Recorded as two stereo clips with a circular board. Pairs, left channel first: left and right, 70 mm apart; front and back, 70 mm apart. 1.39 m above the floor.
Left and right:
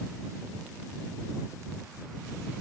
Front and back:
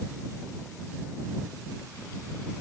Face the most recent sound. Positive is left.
No sound to turn to.